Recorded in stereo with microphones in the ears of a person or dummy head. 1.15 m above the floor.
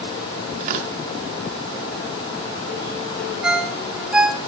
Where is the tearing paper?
45° right (ahead or behind), 1.0 m.